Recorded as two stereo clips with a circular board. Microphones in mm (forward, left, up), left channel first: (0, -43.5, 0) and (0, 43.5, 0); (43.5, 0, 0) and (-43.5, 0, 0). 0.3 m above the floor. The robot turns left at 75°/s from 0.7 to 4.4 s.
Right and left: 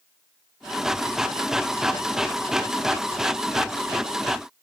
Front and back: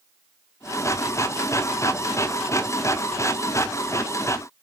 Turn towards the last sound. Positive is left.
No sound to turn to.